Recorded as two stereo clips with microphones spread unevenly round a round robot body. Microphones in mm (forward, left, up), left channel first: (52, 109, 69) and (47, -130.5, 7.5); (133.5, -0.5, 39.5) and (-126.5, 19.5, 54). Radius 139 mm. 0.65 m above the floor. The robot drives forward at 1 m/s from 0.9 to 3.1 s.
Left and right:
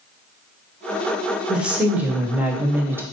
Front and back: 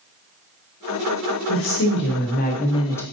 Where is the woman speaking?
15° right, 2 m; by 3.0 s 70° right, 1.1 m.